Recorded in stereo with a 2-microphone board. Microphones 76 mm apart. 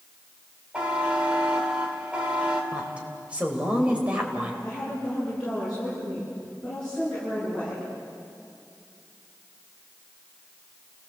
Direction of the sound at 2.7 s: 15° right (ahead or behind).